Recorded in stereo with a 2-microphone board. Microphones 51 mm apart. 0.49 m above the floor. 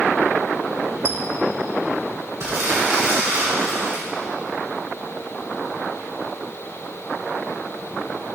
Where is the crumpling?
65° right (ahead or behind), 2.5 m.